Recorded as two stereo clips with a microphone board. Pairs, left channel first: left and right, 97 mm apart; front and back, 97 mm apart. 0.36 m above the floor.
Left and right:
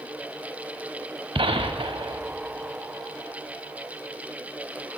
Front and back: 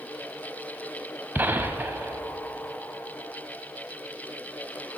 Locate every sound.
1.4 s a gunshot: 110° right, 0.7 m